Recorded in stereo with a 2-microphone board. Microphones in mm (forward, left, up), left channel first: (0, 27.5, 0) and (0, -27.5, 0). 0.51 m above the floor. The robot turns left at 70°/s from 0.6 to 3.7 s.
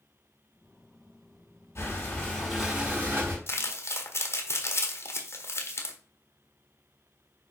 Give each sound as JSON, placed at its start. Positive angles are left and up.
{"t": 1.8, "sound": "breathing", "azimuth_deg": 60, "distance_m": 4.0}
{"t": 3.5, "sound": "crumpling", "side_deg": 45, "distance_m": 1.4}